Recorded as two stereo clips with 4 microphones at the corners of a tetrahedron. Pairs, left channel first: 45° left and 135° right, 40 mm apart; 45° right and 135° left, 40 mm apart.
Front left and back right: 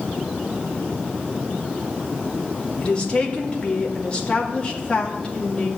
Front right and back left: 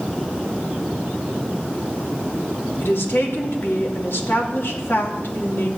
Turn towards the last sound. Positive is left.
turn(degrees=-20)